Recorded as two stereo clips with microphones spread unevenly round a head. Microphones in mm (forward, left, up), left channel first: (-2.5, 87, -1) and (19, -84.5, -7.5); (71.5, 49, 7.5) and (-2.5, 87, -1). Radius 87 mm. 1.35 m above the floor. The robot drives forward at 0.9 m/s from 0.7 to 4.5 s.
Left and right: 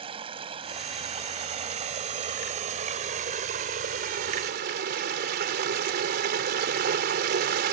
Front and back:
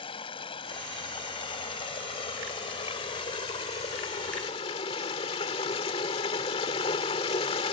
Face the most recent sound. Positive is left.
turn(degrees=-45)